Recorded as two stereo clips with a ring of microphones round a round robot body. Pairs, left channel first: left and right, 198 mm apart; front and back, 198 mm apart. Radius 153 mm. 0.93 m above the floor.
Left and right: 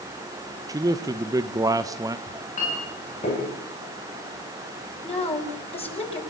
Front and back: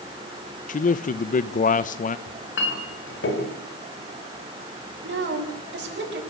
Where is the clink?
25° left, 4 m.